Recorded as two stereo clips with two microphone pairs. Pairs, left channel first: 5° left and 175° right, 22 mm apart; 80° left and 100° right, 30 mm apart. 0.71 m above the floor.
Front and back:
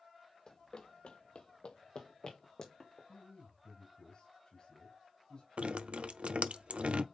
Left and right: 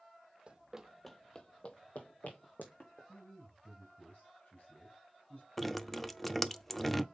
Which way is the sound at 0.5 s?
55° right.